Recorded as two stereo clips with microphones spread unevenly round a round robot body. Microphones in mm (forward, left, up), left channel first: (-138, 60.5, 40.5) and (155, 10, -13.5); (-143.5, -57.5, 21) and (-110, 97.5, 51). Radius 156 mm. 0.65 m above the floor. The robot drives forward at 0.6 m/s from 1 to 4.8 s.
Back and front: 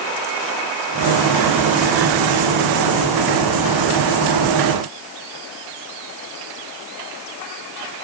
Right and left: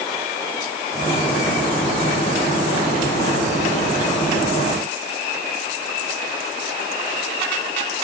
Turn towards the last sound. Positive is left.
No sound to turn to.